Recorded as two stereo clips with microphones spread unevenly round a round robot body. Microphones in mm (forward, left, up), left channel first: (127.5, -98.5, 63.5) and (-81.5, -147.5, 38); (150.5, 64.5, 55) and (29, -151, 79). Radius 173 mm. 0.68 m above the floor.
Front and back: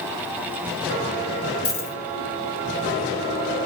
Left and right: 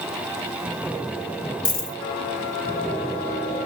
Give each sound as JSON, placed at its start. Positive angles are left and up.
{"t": 1.6, "sound": "a dropped coin", "azimuth_deg": 5, "distance_m": 1.1}